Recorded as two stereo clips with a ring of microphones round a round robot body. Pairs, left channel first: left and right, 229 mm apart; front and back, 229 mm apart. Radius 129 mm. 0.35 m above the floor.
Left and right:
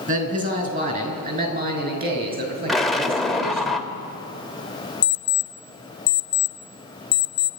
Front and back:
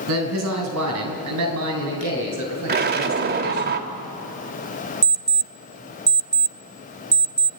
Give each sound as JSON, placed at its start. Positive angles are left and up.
{"t": 0.1, "sound": "a man speaking", "azimuth_deg": -145, "distance_m": 5.0}
{"t": 2.7, "sound": "an explosion", "azimuth_deg": 180, "distance_m": 1.6}
{"t": 5.0, "sound": "an alarm clock", "azimuth_deg": 120, "distance_m": 0.9}